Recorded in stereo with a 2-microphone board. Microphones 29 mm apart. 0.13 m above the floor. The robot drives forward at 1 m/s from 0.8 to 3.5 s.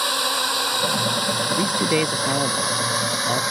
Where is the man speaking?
40° right (ahead or behind); by 3.4 s 20° right (ahead or behind).